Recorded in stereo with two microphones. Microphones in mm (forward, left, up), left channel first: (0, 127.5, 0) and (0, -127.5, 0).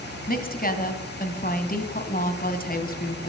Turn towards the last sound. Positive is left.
turn(degrees=35)  # may be behind; listen again after turning